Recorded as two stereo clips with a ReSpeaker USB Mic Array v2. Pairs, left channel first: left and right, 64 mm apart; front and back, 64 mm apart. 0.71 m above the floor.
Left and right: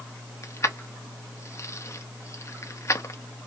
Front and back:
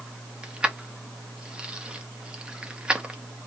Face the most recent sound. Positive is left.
turn(degrees=110)